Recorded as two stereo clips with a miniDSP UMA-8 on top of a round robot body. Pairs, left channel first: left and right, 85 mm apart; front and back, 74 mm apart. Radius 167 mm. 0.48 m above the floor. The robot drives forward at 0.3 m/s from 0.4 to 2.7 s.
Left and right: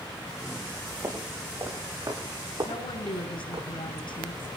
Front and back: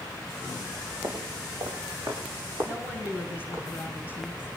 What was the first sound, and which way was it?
Footsteps, 145° right.